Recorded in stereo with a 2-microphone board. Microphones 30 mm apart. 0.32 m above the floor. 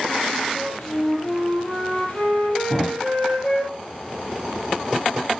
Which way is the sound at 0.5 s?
50° left (ahead or behind).